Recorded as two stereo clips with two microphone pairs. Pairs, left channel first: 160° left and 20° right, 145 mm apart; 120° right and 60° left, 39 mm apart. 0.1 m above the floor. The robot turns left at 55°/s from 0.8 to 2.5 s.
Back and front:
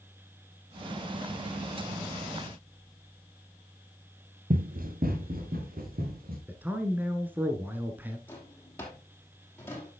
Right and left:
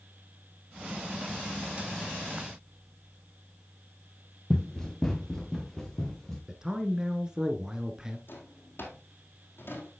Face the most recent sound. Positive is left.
turn(degrees=-125)